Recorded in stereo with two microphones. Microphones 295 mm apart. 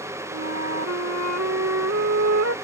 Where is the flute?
60° right (ahead or behind).